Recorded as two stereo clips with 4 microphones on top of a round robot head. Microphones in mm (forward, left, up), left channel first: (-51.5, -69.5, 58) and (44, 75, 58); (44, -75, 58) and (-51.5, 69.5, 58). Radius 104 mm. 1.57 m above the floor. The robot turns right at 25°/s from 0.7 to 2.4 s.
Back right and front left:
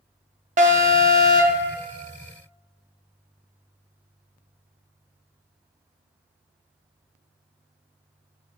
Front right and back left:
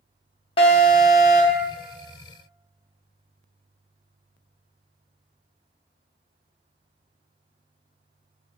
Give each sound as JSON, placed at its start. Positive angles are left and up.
{"t": 0.6, "sound": "an alarm", "azimuth_deg": 5, "distance_m": 0.6}